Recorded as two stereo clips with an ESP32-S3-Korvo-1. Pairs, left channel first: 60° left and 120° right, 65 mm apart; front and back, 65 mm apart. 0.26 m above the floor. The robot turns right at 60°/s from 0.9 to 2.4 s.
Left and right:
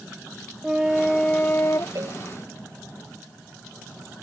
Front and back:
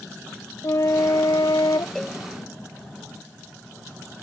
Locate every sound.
0.6 s a flute: 35° right; by 1.9 s 20° left
1.9 s a cowbell: 85° right; by 2.2 s 70° right